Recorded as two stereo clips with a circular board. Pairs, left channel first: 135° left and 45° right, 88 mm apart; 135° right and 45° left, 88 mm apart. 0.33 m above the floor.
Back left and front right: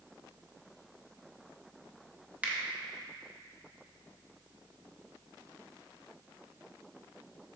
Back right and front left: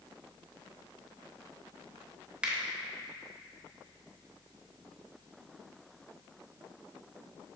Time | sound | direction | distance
2.4 | a finger snap | 15° right | 0.7 m